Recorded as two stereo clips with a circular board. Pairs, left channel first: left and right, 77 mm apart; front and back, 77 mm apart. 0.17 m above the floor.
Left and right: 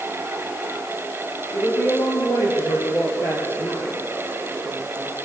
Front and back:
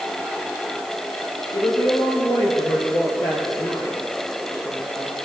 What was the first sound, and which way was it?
A woman speaking, 35° left.